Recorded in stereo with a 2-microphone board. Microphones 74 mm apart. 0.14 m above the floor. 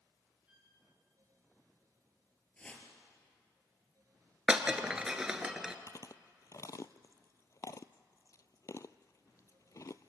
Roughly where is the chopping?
I don't hear chopping.